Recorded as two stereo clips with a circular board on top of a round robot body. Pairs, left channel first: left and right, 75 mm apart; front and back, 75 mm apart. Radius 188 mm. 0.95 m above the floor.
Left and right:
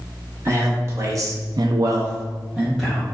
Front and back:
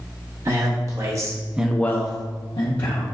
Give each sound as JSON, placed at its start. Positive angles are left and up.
{"t": 0.5, "sound": "a man speaking", "azimuth_deg": -150, "distance_m": 1.6}